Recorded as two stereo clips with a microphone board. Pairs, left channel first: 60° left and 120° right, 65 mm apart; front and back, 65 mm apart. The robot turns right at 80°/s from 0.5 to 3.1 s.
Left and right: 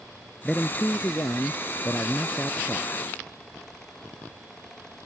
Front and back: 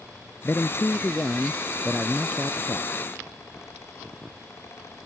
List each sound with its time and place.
0.4 s a man speaking: 15° right; by 2.9 s straight behind